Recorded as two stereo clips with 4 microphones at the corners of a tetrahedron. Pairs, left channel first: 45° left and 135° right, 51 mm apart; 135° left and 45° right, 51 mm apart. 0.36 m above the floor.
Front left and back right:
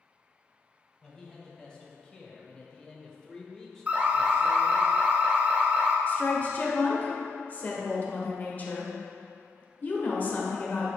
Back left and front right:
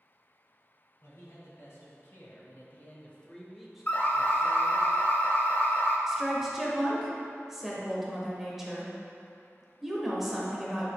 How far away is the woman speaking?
About 1.1 m.